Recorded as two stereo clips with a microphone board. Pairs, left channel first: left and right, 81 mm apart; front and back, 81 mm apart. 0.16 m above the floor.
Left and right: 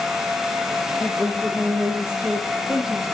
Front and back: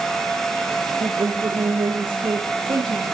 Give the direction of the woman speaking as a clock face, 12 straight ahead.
6 o'clock.